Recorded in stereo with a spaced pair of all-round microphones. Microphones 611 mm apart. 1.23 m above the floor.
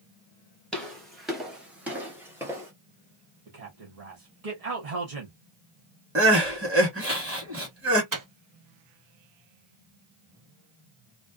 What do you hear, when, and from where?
0.7 s footsteps: centre (ahead or behind), 1.3 m; by 2.7 s 5° right (ahead or behind), 1.5 m
3.5 s a man speaking: 75° right (ahead or behind), 1.0 m
6.2 s crying: 20° right (ahead or behind), 1.5 m
8.1 s a microwave: 35° right (ahead or behind), 0.5 m